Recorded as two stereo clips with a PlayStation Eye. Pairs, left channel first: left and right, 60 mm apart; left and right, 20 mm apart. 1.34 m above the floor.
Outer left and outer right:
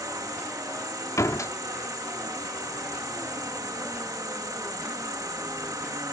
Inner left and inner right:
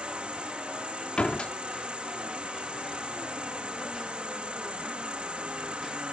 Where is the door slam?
65° left (ahead or behind).